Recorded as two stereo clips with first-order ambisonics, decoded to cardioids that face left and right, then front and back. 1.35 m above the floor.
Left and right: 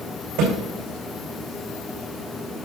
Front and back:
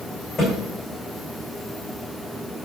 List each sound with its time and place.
0.4 s a thud: 80° right, 5 m